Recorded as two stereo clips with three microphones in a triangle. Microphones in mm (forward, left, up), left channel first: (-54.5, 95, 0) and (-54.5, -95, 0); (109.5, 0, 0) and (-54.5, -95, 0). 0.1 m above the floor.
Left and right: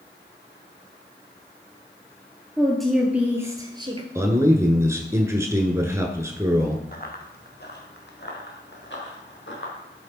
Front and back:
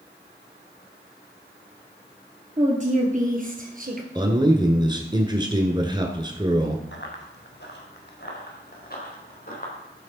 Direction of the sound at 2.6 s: 170° left.